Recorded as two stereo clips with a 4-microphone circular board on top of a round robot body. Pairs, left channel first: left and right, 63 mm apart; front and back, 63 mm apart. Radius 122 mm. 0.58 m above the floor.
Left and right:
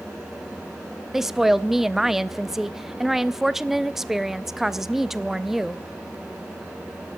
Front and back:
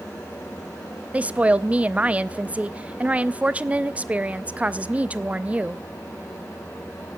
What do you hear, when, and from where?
1.1 s a woman speaking: 165° right, 0.6 m